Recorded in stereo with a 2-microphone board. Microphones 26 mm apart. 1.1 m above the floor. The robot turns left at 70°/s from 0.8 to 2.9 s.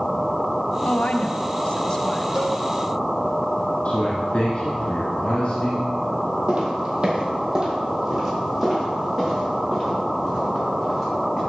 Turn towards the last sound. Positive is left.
turn(degrees=5)  # may be behind; listen again after turning